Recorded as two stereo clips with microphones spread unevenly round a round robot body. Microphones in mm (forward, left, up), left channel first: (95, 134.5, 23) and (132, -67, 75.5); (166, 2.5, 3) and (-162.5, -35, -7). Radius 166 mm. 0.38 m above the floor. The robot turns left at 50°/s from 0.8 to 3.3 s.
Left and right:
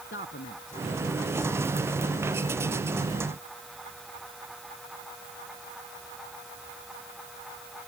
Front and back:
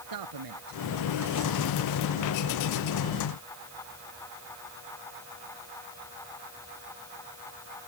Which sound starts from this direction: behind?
A man speaking, at 0.1 s.